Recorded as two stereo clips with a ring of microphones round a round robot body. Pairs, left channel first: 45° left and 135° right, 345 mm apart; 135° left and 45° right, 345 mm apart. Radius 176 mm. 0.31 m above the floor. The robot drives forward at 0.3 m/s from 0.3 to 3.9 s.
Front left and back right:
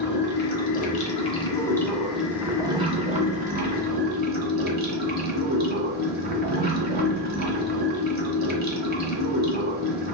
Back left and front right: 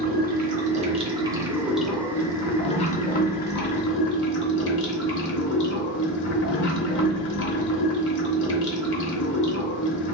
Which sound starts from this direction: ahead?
Running water, at 0.0 s.